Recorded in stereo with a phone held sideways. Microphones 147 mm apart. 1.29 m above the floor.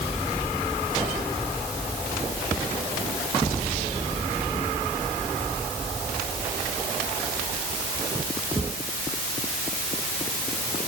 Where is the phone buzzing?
No phone buzzing in this recording.